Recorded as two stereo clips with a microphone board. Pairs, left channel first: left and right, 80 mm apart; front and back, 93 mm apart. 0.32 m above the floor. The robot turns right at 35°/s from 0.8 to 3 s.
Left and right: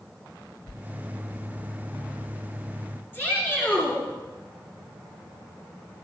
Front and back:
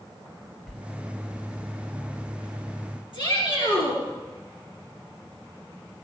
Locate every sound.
0.7 s a sliding door: 90° left, 0.7 m
3.1 s a shout: 25° left, 4.5 m